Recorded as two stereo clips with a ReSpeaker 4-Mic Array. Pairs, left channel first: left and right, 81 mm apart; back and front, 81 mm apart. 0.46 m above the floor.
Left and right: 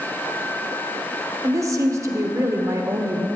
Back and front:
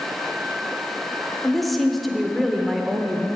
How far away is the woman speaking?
About 0.9 m.